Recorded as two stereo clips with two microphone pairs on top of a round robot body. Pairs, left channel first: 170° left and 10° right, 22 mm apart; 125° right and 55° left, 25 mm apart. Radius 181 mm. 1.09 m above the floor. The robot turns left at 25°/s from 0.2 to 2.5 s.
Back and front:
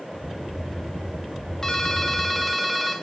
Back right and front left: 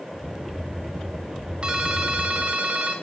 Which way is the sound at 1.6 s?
100° left.